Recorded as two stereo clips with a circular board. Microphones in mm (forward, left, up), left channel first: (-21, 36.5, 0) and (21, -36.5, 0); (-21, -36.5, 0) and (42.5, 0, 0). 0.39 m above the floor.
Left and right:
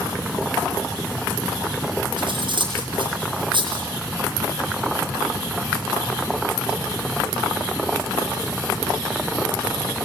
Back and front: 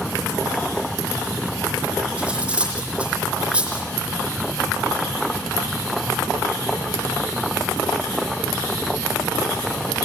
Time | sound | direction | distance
2.2 | cutlery clinking | 45° right | 9.5 m